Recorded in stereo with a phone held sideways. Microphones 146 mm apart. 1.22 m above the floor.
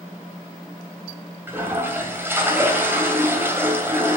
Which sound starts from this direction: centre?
A toilet flushing, at 1.5 s.